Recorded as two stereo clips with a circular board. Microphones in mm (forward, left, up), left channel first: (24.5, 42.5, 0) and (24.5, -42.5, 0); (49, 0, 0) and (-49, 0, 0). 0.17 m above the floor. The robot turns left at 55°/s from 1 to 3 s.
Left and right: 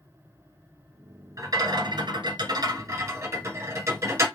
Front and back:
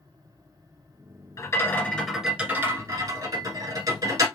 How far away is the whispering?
I don't hear whispering.